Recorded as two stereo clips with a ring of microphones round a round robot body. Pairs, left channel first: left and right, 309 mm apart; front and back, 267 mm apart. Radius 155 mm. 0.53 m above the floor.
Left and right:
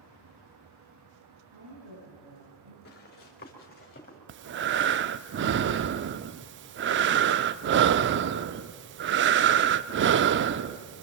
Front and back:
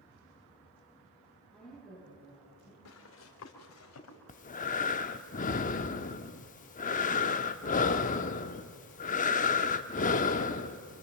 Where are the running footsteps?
30° left, 4.5 m.